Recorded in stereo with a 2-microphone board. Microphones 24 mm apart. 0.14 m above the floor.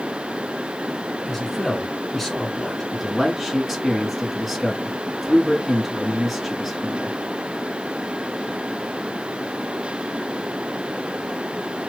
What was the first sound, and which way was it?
A man speaking, 5° left (ahead or behind).